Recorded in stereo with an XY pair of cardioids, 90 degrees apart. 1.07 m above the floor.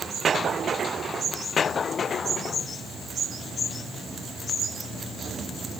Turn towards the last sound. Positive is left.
No sound to turn to.